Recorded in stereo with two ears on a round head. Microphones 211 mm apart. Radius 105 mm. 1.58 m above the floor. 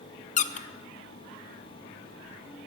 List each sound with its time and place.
0.4 s a squeak: 30° left (ahead or behind), 0.6 m